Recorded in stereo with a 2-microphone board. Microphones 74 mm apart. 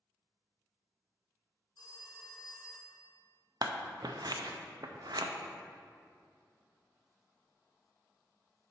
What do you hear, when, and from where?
1.8 s a phone ringing: 70° left (ahead or behind), 0.9 m
3.6 s scissors: 60° right (ahead or behind), 0.5 m